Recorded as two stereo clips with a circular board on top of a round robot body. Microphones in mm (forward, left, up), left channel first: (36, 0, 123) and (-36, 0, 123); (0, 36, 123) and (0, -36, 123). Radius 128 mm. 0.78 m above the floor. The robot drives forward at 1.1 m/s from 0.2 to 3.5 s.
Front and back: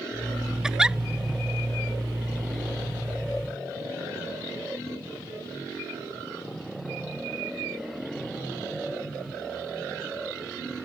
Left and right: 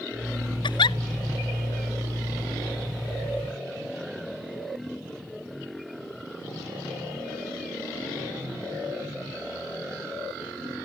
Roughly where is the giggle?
Left.